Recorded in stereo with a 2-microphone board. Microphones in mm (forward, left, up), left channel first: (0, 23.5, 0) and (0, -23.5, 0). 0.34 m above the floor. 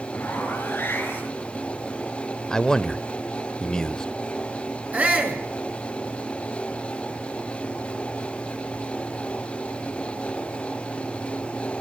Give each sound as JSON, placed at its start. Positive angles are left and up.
{"t": 0.1, "sound": "a zipper", "side_deg": 40, "distance_m": 7.0}
{"t": 2.5, "sound": "a man speaking", "side_deg": 15, "distance_m": 0.9}
{"t": 4.9, "sound": "a shout", "side_deg": -30, "distance_m": 4.5}